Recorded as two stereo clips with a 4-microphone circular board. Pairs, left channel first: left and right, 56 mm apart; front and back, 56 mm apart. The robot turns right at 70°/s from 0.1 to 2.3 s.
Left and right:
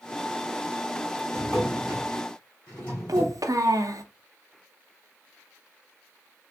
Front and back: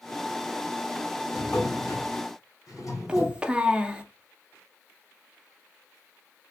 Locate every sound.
1.3 s a drawer: 45° right, 2.5 m; by 3.4 s 25° left, 2.5 m
3.1 s a child speaking: 105° right, 0.5 m